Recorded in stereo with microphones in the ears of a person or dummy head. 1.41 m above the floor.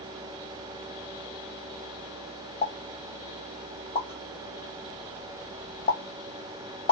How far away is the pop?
About 1.3 m.